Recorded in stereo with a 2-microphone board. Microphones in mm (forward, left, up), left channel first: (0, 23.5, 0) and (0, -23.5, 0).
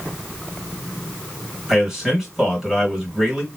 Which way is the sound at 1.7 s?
10° right (ahead or behind).